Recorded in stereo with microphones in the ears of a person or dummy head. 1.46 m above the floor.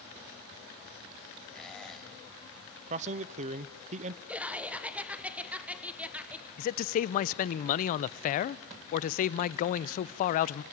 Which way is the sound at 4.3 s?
5° right (ahead or behind).